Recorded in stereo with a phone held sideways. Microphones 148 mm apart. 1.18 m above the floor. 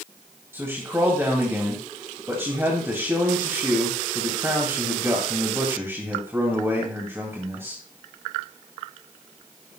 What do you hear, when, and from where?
0.5 s a man speaking: 15° right (ahead or behind), 2.5 m